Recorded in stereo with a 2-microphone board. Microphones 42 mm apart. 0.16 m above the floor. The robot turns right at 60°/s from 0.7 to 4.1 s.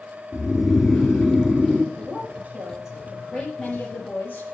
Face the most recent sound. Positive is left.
turn(degrees=60)